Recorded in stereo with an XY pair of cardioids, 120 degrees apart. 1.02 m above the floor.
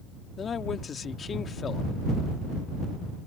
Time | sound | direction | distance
0.4 | a man speaking | 40° left | ?